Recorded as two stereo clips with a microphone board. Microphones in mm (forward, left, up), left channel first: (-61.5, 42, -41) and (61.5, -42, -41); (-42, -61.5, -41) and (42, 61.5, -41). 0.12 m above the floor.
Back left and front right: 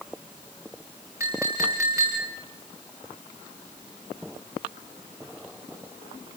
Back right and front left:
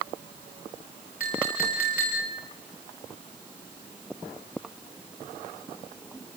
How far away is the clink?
About 7 m.